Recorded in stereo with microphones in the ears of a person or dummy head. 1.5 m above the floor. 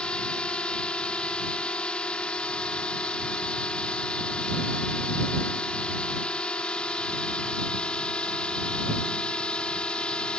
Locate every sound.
0.0 s a drone: 5° left (ahead or behind)